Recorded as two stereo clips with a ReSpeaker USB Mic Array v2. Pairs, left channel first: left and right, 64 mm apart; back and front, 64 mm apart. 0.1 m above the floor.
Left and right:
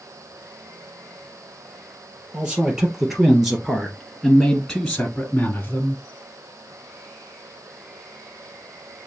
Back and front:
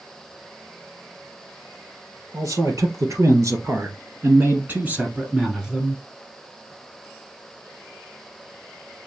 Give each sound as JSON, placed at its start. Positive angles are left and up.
{"t": 2.3, "sound": "a man speaking", "azimuth_deg": -15, "distance_m": 3.0}